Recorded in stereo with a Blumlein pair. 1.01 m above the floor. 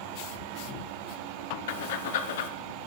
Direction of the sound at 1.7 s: 55° left.